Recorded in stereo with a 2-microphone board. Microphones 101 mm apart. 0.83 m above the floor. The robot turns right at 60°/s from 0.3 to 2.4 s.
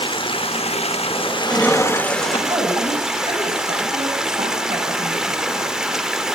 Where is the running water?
60° left, 1.2 m; by 6.3 s 175° right, 1.2 m.